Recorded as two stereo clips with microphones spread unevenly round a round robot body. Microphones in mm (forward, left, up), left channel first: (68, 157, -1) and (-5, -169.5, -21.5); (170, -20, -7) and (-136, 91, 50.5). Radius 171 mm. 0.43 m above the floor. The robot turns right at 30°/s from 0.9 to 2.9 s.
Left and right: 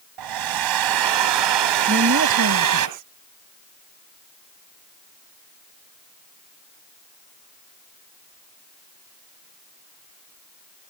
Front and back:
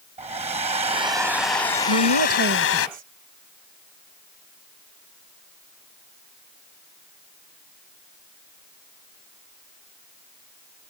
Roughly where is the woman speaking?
Behind.